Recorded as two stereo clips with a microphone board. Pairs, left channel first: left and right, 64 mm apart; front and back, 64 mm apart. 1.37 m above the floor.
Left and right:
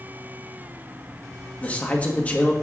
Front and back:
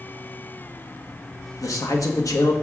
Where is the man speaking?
25° left, 1.4 m.